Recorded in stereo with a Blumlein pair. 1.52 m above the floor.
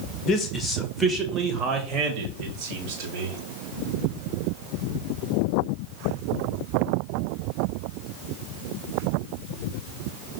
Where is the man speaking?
20° left, 1.0 m; by 3.4 s 50° right, 2.5 m.